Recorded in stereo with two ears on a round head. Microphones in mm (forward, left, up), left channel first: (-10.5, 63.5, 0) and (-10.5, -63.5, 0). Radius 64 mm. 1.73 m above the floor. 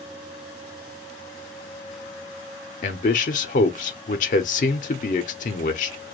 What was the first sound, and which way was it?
A man speaking, 55° left (ahead or behind).